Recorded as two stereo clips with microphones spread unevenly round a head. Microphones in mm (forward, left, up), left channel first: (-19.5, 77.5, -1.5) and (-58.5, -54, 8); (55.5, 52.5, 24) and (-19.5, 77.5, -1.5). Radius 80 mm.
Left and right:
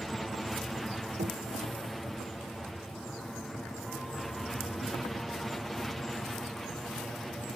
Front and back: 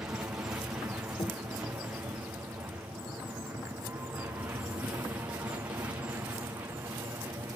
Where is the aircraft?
160° left.